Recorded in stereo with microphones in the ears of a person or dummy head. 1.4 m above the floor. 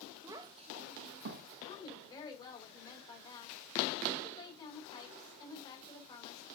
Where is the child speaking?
15° right (ahead or behind), 0.9 m; by 1.5 s 65° right (ahead or behind), 1.1 m.